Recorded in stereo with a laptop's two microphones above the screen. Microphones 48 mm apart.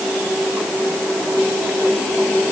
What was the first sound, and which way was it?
Only background noise.